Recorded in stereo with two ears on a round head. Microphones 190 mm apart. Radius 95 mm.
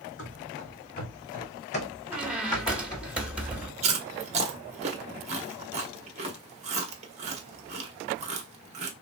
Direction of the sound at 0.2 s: 60° left (ahead or behind).